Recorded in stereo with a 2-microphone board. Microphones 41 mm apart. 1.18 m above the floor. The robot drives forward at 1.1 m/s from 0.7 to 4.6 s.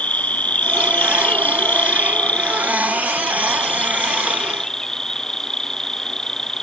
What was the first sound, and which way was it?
An insect, 35° left (ahead or behind).